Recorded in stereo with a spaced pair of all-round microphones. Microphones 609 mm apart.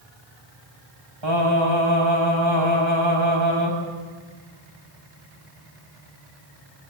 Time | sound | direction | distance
1.2 | singing | 50° right (ahead or behind) | 8 m